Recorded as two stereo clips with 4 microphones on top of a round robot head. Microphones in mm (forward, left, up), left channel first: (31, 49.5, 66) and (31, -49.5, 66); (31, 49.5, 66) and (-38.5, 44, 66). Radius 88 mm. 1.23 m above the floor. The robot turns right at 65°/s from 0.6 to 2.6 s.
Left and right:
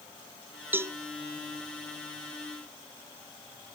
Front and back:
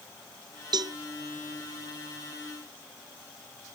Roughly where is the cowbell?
Behind.